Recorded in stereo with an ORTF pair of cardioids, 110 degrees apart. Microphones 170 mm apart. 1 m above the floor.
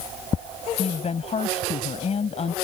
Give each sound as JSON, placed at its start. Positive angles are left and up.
{"t": 0.8, "sound": "a woman speaking", "azimuth_deg": 40}